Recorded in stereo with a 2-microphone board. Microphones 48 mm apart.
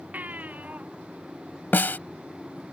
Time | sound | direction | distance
0.1 | a baby crying | 35° right (ahead or behind) | ?
1.7 | a snare drum | 45° left (ahead or behind) | ?